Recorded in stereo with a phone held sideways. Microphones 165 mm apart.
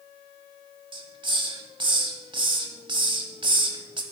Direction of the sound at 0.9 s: 30° right (ahead or behind).